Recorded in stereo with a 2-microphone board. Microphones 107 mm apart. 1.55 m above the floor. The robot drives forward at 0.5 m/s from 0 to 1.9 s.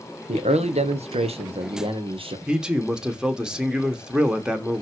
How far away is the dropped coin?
No dropped coin in this recording.